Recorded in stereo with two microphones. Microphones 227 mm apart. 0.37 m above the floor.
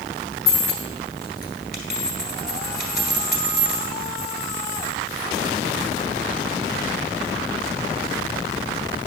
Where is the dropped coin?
40° left (ahead or behind), 1.7 m.